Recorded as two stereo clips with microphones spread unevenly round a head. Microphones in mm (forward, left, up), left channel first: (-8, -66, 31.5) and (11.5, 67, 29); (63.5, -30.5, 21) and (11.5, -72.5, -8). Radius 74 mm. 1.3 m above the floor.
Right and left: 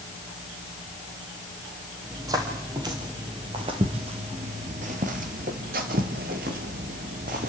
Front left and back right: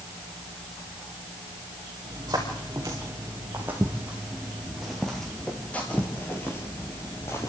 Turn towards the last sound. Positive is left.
turn(degrees=60)